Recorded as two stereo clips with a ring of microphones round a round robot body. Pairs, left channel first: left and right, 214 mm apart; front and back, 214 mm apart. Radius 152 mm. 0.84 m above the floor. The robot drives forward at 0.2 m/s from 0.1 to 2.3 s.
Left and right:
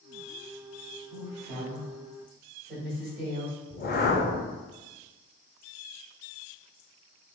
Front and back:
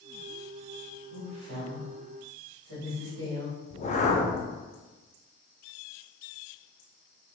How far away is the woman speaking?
About 1.8 m.